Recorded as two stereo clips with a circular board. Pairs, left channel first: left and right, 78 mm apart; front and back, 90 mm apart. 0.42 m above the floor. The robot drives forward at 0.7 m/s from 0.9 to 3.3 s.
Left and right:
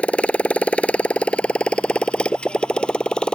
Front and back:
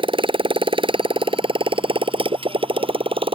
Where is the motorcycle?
165° left; by 3.4 s 170° left.